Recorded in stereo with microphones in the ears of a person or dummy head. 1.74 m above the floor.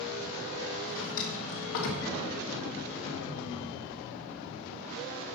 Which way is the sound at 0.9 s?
65° left (ahead or behind).